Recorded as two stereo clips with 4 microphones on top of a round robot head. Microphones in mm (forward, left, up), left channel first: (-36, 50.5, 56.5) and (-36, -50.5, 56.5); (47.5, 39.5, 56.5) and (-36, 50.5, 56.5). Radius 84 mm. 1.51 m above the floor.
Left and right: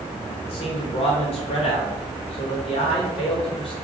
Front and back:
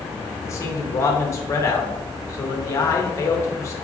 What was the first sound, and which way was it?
A man speaking, 45° left.